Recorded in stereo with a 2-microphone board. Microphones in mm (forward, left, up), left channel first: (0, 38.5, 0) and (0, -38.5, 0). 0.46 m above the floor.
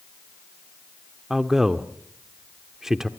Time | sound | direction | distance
1.3 | a man speaking | 5° right (ahead or behind) | 0.8 m